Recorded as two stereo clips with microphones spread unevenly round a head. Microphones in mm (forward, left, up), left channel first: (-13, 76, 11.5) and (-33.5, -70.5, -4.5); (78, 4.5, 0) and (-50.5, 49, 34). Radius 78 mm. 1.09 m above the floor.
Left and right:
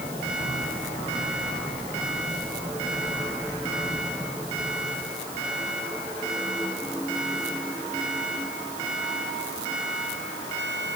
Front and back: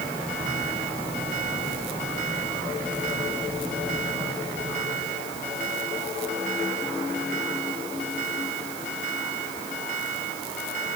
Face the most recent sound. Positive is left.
No sound to turn to.